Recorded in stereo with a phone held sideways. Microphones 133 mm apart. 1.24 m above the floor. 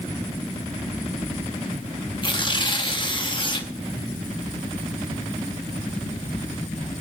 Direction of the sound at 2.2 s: 35° left (ahead or behind).